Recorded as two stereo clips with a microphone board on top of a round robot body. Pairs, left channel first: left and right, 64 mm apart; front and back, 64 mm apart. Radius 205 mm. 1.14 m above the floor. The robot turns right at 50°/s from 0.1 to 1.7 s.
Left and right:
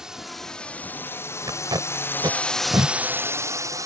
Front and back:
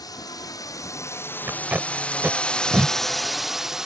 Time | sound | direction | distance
0.0 | a drone | 10° right | ?
1.5 | tape being pulled | 120° right | ?